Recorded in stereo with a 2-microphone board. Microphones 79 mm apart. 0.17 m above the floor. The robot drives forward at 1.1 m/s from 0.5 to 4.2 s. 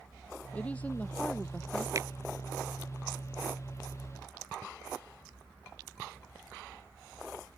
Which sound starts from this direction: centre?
A woman speaking, at 0.5 s.